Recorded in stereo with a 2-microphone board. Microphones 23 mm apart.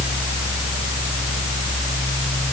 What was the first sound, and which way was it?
Only background noise.